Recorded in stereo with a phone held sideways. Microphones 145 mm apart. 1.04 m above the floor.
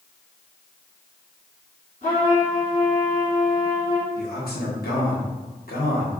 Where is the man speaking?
80° left, 0.9 m.